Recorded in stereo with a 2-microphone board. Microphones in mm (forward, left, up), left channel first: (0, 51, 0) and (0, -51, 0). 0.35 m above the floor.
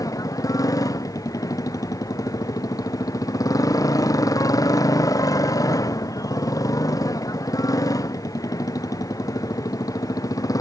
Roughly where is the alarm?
I don't hear an alarm.